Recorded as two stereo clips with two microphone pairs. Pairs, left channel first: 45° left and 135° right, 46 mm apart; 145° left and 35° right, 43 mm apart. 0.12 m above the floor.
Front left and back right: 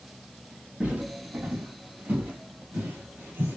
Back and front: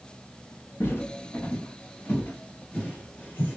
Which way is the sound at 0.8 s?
165° left.